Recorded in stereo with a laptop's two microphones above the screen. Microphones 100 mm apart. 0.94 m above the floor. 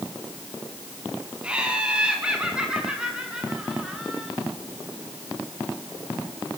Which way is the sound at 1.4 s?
10° right (ahead or behind).